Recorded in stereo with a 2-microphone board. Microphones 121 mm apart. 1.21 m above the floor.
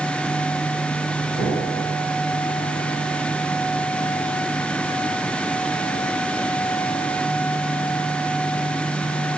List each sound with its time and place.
1.4 s an explosion: 80° right, 6.5 m